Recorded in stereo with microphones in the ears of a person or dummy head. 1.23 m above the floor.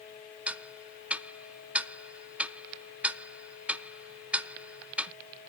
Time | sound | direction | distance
0.5 | ticking | 10° right (ahead or behind) | 0.5 m